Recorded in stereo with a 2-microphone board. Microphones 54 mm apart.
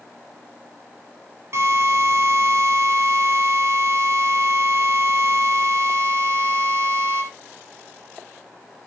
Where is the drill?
60° right (ahead or behind), 4 m.